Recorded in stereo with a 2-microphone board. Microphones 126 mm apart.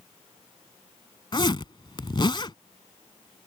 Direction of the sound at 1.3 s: 40° left (ahead or behind).